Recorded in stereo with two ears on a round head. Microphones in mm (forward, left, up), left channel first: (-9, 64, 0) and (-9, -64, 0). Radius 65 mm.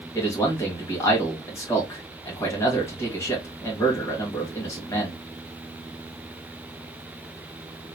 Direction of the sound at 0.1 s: 20° left (ahead or behind).